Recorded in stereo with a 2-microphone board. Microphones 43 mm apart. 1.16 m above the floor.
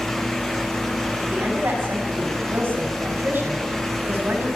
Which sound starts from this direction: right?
A woman speaking, at 1.2 s.